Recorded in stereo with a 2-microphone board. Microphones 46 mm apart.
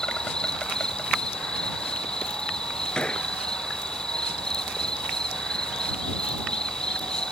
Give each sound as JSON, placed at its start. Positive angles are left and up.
{"t": 0.0, "sound": "an insect", "side_deg": 20}
{"t": 3.0, "sound": "a gunshot", "side_deg": 20}